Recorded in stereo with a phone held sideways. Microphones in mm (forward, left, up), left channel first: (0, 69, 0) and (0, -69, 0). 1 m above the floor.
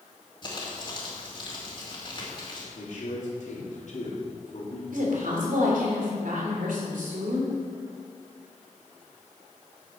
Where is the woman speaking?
80° right, 3.5 m.